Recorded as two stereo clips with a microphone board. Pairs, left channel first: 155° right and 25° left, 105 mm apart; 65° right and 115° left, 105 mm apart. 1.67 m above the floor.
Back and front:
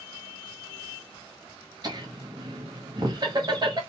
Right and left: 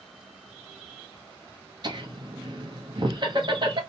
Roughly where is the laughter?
Left.